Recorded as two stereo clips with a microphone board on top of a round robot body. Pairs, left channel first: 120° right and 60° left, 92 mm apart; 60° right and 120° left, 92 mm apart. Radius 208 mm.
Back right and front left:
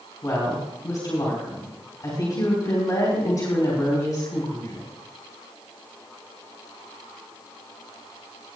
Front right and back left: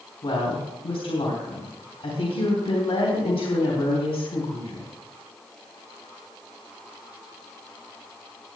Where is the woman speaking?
65° right, 3.5 m.